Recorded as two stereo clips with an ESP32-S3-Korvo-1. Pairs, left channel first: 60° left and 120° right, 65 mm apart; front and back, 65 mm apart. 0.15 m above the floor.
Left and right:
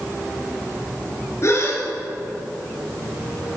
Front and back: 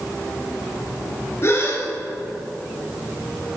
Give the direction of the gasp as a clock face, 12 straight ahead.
11 o'clock.